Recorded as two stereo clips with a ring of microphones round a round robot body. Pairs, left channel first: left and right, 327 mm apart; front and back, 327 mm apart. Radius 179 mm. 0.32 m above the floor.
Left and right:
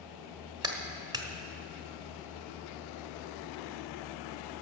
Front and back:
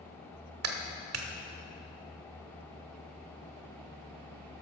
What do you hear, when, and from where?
0.6 s a clap: 165° right, 1.2 m